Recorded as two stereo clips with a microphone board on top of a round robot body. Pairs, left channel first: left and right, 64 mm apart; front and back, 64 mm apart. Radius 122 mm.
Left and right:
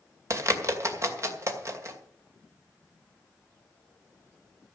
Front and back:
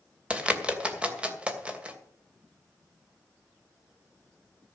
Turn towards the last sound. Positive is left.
turn(degrees=-110)